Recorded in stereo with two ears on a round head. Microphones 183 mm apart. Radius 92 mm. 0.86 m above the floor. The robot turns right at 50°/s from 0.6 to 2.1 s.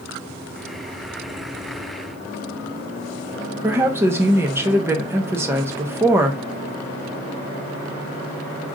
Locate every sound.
3.6 s a woman speaking: 10° right (ahead or behind), 0.8 m